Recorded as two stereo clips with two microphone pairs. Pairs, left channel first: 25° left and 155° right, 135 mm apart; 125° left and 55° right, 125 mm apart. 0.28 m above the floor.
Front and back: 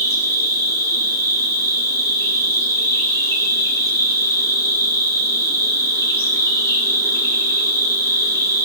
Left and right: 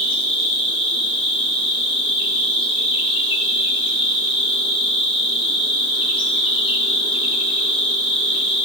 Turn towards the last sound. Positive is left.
turn(degrees=90)